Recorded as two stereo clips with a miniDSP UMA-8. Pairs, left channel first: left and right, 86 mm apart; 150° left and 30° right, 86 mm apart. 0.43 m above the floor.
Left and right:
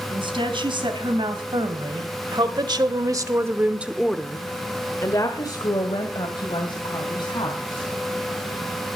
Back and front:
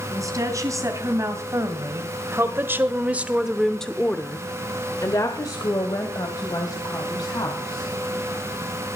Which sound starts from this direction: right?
A woman speaking, at 0.1 s.